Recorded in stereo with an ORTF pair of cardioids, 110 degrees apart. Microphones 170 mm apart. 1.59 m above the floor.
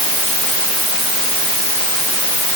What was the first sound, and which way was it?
Only background noise.